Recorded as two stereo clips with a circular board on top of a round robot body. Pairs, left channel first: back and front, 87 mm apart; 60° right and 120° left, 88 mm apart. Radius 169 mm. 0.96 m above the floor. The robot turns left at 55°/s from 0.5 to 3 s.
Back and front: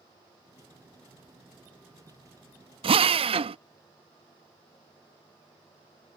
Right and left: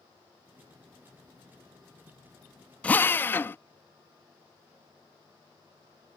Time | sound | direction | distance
2.8 | a drill | 20° left | ?